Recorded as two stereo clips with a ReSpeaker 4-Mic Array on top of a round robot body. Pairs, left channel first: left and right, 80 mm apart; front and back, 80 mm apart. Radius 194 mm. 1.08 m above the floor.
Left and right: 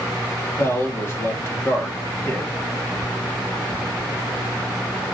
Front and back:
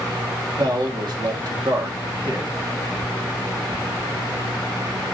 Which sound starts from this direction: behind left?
A man speaking, at 0.6 s.